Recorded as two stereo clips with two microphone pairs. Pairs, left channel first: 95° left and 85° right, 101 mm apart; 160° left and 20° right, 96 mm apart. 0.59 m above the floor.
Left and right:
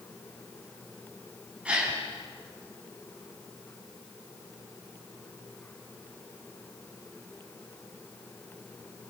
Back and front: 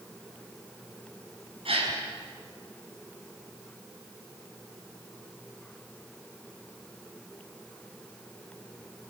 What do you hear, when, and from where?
1.6 s a gasp: 5° right, 5.5 m